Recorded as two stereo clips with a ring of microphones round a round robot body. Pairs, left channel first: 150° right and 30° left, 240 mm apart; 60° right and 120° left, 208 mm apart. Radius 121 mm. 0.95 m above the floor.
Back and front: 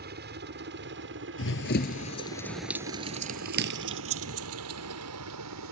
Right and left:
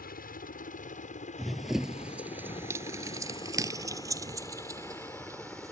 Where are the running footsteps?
150° right; by 5.7 s 45° left.